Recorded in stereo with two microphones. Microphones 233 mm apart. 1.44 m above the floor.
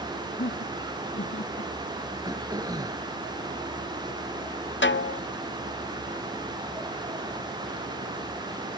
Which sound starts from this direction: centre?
Throat clearing, at 2.2 s.